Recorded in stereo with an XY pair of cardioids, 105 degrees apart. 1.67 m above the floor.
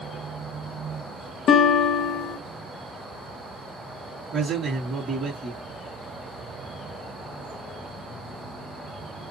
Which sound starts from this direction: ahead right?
A man speaking, at 4.3 s.